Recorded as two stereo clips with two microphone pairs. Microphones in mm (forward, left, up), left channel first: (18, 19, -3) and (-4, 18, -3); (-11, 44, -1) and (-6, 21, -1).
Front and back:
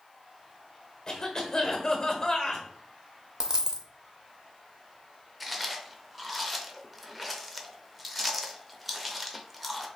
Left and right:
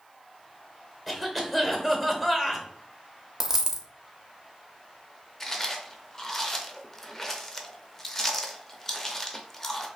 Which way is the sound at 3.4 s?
150° right.